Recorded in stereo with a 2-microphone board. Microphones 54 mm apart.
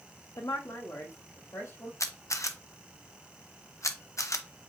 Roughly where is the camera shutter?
Left.